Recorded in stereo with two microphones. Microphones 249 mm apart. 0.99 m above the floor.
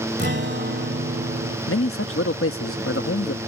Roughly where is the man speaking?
Left.